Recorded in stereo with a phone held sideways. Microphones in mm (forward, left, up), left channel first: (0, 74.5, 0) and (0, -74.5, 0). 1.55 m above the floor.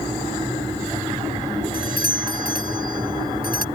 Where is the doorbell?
80° left.